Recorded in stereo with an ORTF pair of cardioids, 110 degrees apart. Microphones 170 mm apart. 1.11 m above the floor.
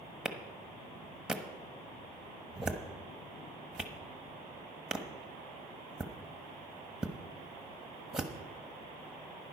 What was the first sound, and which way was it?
A clap, 5° right.